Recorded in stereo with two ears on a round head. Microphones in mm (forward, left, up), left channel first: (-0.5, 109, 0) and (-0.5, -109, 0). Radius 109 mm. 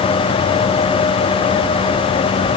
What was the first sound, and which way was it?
Only background noise.